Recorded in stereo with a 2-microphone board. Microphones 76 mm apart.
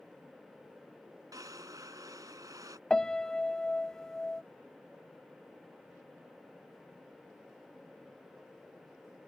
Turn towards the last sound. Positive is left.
turn(degrees=10)  # may be behind; listen again after turning